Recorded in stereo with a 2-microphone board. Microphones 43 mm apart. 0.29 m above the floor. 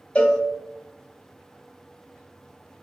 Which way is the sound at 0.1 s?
25° left (ahead or behind).